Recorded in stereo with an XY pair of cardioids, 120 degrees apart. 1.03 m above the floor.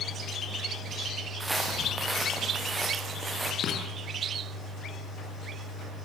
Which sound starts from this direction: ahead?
Footsteps, at 1.4 s.